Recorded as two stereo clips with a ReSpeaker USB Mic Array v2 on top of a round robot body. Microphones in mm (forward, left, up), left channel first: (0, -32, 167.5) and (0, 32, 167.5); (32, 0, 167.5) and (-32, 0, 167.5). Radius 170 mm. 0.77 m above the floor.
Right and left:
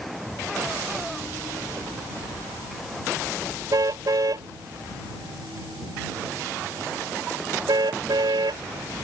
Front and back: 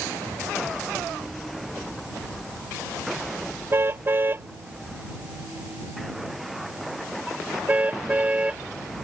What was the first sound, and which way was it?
A car horn, 125° left.